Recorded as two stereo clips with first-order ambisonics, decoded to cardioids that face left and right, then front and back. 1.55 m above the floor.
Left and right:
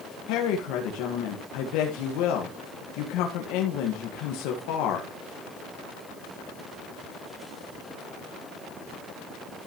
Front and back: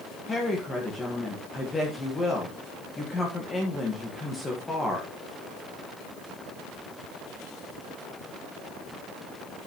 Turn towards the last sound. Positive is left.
turn(degrees=75)